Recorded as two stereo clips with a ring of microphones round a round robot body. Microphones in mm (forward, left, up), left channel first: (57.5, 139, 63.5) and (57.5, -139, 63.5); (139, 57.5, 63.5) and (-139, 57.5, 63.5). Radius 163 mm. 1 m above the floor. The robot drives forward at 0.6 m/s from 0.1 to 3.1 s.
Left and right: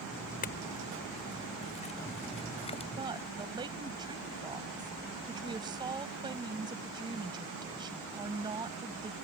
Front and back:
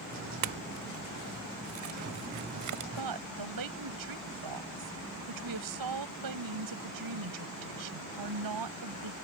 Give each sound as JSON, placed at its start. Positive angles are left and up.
{"t": 0.4, "sound": "a clink", "azimuth_deg": 155}
{"t": 3.0, "sound": "a woman speaking", "azimuth_deg": -165}